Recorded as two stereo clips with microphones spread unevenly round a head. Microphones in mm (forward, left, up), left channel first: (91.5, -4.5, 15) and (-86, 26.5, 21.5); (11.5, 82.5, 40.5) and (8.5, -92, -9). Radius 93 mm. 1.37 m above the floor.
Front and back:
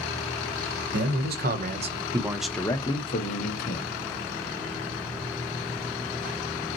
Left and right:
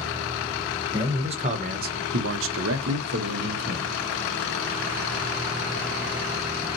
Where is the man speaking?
160° right, 1.2 m; by 3.9 s 50° right, 1.3 m.